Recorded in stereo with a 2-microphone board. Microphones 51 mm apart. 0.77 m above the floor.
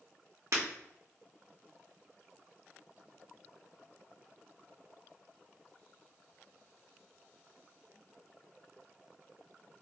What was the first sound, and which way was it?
Breaking glass, 75° right (ahead or behind).